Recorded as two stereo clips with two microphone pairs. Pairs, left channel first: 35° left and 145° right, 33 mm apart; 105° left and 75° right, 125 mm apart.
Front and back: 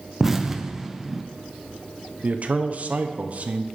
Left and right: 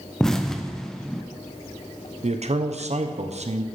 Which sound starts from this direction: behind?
An explosion, at 0.2 s.